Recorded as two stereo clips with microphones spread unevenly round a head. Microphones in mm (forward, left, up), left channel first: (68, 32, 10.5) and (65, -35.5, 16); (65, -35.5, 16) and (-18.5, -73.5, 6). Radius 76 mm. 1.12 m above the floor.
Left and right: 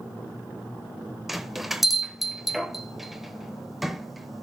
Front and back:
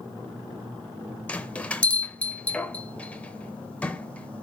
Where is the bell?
15° right, 0.9 m.